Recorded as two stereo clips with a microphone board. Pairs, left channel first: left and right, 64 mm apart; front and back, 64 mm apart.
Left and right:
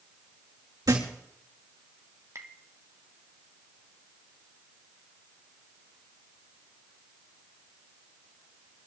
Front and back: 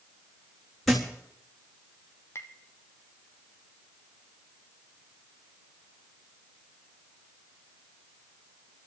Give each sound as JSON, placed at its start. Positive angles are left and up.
{"t": 0.9, "sound": "a thud", "azimuth_deg": -85, "distance_m": 4.5}
{"t": 2.4, "sound": "tapping", "azimuth_deg": -50, "distance_m": 1.6}